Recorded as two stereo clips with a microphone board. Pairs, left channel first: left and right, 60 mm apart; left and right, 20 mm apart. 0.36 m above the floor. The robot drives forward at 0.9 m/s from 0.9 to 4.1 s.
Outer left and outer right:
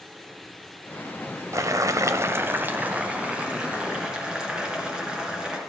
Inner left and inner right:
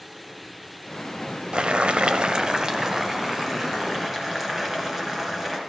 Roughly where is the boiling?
Right.